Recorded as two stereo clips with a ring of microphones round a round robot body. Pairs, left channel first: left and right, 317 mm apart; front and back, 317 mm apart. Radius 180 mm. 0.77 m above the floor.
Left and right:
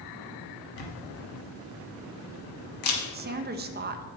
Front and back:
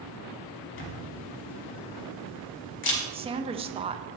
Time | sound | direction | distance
0.8 | a camera shutter | 50° left | 0.9 m
3.1 | a woman speaking | 120° right | 0.6 m